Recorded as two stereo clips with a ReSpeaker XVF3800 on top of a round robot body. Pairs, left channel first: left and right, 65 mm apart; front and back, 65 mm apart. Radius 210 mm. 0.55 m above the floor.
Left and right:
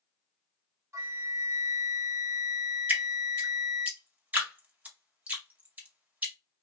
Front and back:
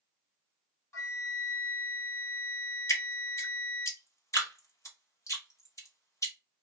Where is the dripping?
30° right, 1.9 m.